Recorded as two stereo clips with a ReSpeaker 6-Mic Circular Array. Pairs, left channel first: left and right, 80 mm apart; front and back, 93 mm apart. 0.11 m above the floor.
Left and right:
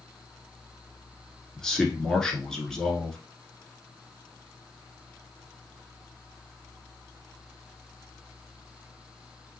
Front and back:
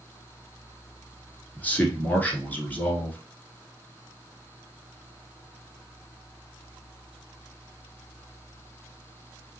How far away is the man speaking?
About 1.1 m.